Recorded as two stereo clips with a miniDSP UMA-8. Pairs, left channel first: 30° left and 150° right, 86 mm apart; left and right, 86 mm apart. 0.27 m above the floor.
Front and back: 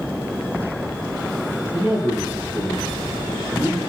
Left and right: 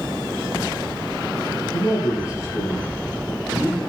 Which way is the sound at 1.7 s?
140° left.